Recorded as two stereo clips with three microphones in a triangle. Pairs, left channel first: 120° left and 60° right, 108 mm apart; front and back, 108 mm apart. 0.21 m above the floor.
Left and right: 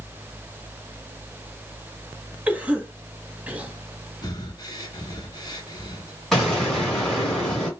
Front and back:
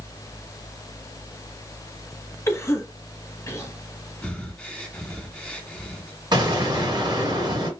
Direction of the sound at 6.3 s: 155° right.